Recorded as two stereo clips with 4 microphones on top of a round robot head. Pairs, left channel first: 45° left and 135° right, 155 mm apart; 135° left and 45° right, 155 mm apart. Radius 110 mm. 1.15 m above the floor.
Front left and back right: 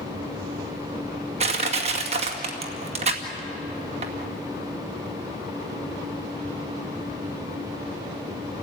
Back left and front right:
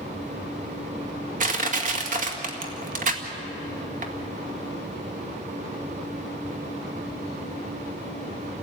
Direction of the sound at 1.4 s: 85° right.